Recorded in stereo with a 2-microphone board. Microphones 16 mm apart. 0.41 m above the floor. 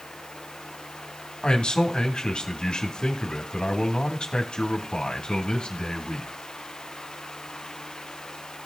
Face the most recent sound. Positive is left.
turn(degrees=55)  # may be behind; listen again after turning